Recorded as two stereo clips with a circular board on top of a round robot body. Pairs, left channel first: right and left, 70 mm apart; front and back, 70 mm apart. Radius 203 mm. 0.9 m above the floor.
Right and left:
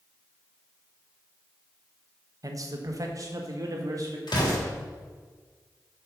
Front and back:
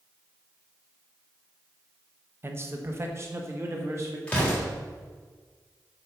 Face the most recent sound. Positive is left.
turn(degrees=-75)